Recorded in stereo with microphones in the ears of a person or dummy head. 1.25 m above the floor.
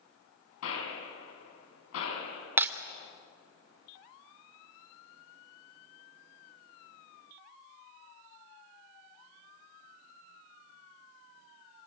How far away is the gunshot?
About 8.5 m.